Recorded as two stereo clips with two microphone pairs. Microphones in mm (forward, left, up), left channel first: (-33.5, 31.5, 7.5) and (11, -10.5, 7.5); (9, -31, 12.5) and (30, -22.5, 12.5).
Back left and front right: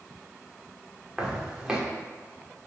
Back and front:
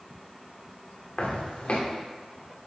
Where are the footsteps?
125° right, 3 m.